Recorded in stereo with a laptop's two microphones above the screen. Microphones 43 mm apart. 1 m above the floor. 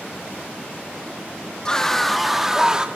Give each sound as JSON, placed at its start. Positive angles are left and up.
{"t": 1.6, "sound": "a scream", "side_deg": 15, "distance_m": 1.4}